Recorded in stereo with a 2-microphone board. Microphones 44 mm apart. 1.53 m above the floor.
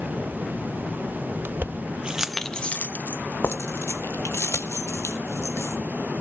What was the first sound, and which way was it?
Keys jangling, 50° right (ahead or behind).